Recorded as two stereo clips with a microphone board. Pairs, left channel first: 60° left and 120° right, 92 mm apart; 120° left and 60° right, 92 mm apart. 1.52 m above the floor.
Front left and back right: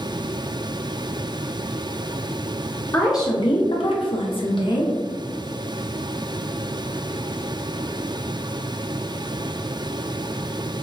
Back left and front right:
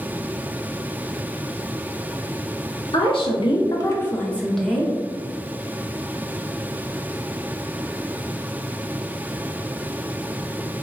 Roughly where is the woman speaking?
Behind left.